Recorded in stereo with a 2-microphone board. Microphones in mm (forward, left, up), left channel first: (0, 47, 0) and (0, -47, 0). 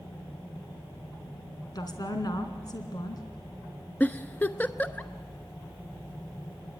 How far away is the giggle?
About 0.9 m.